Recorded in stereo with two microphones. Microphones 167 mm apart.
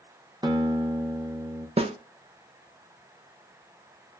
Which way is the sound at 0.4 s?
20° right (ahead or behind).